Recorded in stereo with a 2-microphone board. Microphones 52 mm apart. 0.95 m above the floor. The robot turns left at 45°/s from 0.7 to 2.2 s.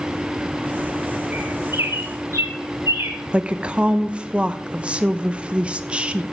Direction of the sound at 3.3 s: 20° right (ahead or behind).